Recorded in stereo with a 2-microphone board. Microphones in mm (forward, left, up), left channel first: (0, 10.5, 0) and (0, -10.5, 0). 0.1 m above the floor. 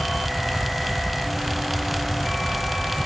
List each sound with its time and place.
Only background noise.